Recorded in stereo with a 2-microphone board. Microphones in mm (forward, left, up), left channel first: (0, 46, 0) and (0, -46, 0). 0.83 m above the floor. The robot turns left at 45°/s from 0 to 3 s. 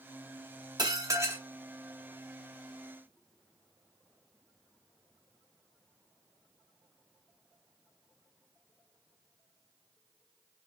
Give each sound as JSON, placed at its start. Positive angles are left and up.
{"t": 0.8, "sound": "dishes clattering", "side_deg": -50, "distance_m": 0.8}